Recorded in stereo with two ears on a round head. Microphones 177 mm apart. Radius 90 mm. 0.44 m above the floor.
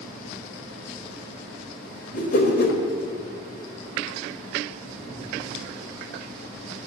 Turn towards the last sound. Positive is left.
turn(degrees=50)  # may be behind; listen again after turning